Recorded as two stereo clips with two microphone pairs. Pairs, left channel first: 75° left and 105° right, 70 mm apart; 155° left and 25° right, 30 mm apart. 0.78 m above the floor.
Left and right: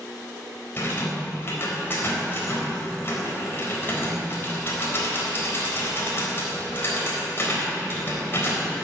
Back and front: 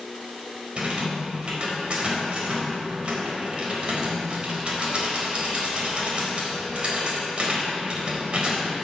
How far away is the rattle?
About 3.5 m.